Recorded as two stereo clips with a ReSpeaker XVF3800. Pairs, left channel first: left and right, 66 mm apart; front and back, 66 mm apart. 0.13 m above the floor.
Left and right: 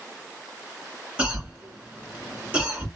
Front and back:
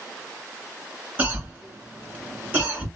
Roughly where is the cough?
Behind right.